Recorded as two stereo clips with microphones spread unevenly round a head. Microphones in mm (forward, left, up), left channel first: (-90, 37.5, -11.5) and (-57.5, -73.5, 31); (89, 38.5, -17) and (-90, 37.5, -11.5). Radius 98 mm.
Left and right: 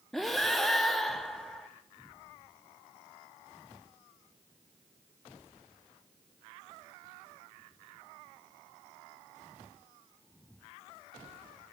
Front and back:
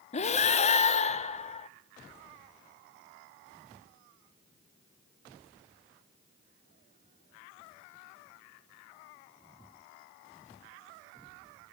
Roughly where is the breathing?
Ahead.